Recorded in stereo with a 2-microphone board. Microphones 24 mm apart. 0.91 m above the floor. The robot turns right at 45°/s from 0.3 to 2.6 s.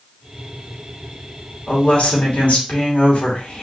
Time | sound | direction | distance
1.7 | a woman speaking | 60° left | 2.5 m